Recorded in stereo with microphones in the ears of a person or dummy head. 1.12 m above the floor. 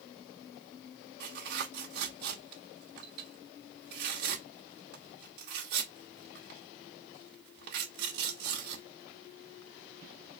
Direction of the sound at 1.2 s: 60° right (ahead or behind).